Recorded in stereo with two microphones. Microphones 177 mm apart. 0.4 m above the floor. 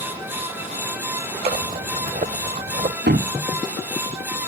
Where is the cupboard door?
80° right.